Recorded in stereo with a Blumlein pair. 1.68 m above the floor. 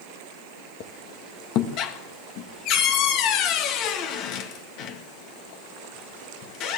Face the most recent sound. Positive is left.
turn(degrees=40)